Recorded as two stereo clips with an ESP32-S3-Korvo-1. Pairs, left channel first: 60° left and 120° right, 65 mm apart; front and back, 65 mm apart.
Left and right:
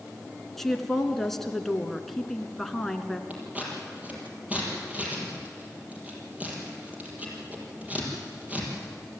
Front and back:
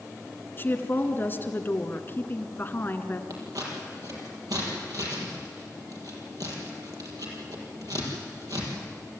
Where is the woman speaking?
20° right, 1.5 m.